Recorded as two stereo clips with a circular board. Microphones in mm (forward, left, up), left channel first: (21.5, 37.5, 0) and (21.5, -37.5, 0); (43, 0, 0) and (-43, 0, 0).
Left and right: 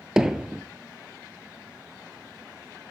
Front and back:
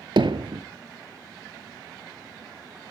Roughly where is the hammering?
Behind.